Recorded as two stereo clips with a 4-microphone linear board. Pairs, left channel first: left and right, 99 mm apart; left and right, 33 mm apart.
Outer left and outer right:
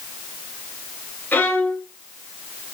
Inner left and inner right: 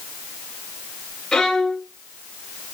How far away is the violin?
About 1.9 m.